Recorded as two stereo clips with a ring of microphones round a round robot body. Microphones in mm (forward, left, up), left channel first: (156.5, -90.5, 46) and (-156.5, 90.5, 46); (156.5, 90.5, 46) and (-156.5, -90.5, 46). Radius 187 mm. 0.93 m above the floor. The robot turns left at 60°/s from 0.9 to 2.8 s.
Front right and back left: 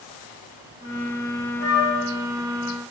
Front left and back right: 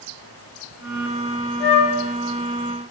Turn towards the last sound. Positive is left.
turn(degrees=-45)